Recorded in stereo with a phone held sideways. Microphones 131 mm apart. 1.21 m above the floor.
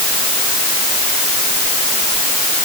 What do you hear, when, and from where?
Only background noise.